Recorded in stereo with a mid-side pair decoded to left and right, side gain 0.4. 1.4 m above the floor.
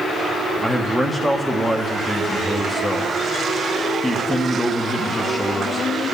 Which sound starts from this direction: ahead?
A man speaking, at 0.6 s.